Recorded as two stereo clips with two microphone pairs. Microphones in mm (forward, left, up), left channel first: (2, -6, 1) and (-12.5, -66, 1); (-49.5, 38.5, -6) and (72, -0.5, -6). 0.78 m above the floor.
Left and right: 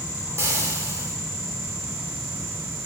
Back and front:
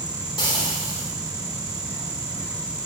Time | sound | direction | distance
0.4 | frying | 145° right | 3 m